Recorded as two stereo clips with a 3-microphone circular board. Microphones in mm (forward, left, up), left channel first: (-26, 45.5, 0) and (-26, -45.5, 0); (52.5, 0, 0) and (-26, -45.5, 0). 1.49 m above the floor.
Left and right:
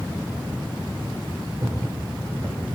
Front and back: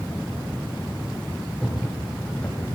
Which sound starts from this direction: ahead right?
Footsteps, at 1.6 s.